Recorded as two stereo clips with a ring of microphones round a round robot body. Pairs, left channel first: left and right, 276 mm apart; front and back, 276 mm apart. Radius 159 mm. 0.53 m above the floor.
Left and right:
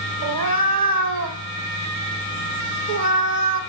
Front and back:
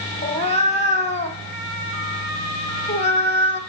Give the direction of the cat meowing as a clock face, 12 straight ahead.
2 o'clock.